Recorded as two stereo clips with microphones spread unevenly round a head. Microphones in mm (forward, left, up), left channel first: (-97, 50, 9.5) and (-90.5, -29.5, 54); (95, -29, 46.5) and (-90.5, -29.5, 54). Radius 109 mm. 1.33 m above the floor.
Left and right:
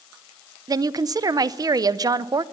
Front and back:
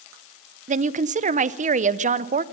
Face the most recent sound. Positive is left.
turn(degrees=-125)